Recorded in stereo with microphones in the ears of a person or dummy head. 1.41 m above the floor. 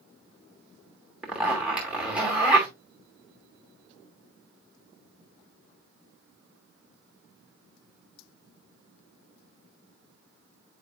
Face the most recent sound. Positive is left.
turn(degrees=-10)  # may be behind; listen again after turning